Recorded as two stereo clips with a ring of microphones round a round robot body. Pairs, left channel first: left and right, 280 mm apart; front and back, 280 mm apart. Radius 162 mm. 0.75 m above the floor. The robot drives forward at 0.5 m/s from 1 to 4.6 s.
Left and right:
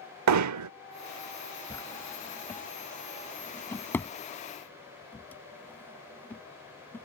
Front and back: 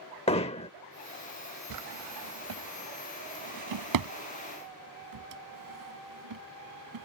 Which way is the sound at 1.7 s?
170° left.